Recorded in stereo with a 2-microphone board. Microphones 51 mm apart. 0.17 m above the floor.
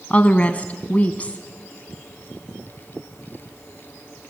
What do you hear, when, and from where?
0.1 s a woman speaking: 30° left (ahead or behind), 1.1 m